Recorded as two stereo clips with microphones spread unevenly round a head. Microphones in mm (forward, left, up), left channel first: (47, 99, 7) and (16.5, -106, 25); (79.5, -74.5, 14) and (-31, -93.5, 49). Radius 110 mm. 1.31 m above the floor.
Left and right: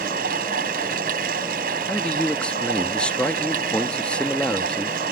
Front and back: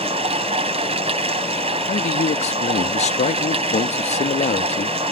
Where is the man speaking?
5° right.